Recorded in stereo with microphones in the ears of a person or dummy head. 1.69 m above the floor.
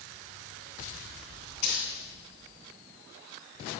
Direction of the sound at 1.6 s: 50° left (ahead or behind).